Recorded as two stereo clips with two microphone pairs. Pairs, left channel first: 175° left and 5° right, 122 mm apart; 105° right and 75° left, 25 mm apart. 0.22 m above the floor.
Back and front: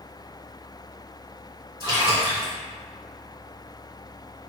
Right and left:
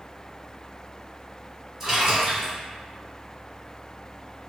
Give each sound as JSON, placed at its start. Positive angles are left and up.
{"t": 1.8, "sound": "a splash", "azimuth_deg": 20, "distance_m": 1.9}